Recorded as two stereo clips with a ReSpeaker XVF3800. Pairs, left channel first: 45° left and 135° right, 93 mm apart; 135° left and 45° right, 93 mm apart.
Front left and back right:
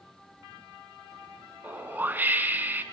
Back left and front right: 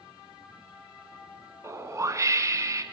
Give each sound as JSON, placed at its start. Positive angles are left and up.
{"t": 1.6, "sound": "a whoosh", "azimuth_deg": -75, "distance_m": 1.1}